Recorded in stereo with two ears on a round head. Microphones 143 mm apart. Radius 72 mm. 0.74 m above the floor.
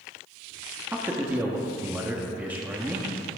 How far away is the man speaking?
About 1.2 m.